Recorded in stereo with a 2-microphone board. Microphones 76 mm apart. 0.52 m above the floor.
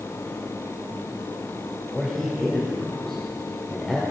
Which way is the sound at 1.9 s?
10° left (ahead or behind).